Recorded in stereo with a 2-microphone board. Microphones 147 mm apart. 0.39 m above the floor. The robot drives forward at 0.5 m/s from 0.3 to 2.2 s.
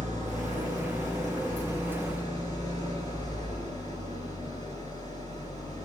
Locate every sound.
0.0 s an engine running: 60° right (ahead or behind), 4.5 m; by 5.9 s 55° right (ahead or behind), 5 m